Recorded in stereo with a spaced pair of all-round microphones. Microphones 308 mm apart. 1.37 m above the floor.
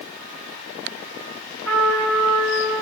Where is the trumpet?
45° right (ahead or behind), 6 m.